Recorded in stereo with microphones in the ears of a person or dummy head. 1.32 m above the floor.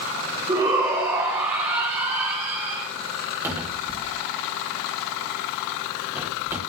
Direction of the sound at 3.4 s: 20° right (ahead or behind).